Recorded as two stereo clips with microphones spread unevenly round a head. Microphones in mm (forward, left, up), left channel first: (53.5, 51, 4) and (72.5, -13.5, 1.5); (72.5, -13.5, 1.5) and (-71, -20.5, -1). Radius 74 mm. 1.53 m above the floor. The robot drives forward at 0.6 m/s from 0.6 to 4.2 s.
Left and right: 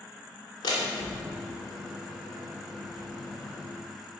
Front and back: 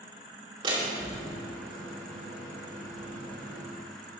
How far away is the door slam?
About 2.5 m.